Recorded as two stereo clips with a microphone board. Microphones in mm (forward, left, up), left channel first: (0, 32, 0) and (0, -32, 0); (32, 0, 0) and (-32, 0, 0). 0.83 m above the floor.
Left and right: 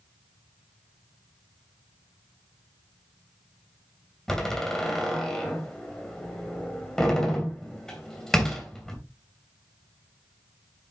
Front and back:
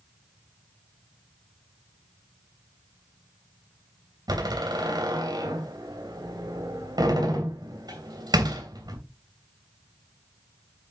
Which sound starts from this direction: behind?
A door slam, at 4.3 s.